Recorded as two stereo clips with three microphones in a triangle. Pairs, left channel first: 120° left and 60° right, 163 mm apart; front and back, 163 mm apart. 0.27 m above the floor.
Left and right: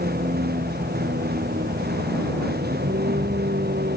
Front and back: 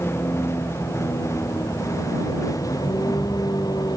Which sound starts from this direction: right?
A vehicle, at 0.0 s.